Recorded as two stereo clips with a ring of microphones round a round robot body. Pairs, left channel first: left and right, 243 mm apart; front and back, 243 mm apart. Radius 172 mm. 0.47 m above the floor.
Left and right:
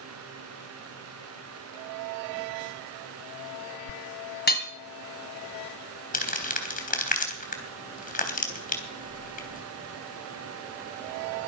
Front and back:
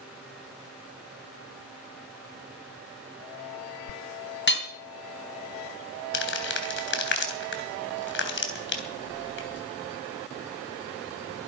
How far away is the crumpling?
About 3.5 m.